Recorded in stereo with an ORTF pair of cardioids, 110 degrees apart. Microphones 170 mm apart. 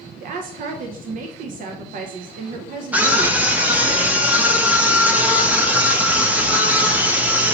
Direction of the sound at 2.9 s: 10° right.